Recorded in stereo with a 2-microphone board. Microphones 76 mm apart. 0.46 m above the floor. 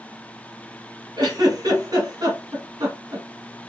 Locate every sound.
1.2 s a giggle: 60° right (ahead or behind), 1.7 m